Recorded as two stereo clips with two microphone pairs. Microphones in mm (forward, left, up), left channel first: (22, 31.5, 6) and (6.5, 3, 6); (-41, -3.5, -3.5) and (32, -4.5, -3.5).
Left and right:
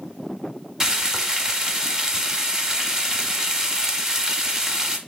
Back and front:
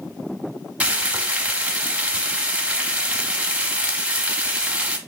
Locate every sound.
0.8 s frying: 60° right, 0.6 m